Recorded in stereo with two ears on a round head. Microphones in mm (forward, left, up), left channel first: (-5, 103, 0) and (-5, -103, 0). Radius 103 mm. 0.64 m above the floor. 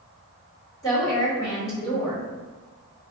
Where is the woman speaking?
15° left (ahead or behind), 1.6 m.